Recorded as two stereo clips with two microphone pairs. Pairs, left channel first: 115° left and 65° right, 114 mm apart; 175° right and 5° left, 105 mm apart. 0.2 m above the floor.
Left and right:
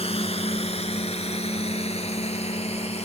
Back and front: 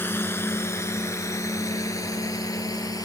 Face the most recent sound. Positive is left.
turn(degrees=135)